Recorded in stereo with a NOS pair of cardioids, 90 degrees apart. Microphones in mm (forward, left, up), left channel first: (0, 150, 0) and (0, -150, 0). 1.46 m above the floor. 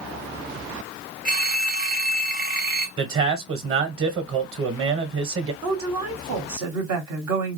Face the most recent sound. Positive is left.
turn(degrees=-70)